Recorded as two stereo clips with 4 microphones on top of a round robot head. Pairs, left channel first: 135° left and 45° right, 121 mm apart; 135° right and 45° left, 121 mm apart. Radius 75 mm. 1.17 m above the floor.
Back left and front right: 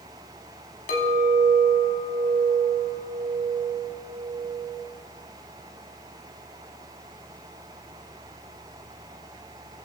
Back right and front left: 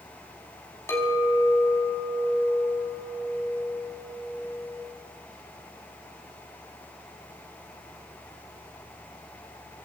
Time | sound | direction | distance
0.9 | a clink | 155° left | 5 m